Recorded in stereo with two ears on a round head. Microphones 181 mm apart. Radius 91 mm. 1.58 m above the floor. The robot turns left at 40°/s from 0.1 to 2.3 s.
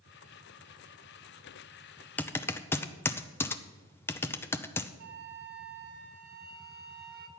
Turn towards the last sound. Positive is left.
turn(degrees=-55)  # may be behind; listen again after turning